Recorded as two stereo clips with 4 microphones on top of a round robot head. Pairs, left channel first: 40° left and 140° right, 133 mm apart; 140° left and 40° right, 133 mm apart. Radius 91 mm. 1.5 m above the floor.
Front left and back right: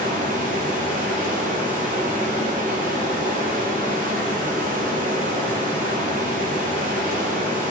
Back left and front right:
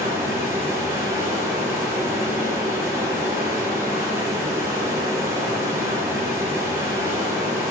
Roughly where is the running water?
Right.